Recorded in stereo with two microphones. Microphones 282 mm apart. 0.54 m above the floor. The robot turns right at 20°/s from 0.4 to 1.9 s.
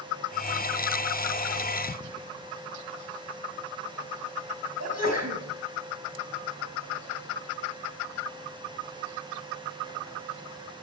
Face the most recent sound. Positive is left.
turn(degrees=-65)  # may be behind; listen again after turning